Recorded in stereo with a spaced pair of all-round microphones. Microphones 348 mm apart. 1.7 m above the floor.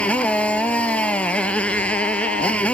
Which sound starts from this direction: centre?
A motorcycle, at 0.0 s.